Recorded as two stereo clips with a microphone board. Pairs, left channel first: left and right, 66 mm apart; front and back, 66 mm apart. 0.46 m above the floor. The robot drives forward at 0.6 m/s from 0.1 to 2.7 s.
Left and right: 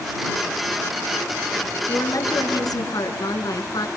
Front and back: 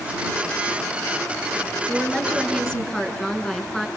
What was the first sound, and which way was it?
A woman speaking, 80° left.